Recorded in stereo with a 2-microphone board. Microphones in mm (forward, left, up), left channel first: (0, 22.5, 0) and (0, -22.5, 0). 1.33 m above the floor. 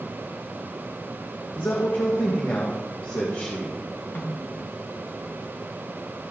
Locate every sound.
1.6 s a man speaking: 60° left (ahead or behind), 1.5 m
4.2 s a snare drum: 55° left (ahead or behind), 1.9 m